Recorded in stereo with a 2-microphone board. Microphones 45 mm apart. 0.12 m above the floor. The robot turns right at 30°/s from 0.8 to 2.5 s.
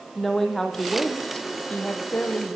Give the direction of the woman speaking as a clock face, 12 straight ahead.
12 o'clock.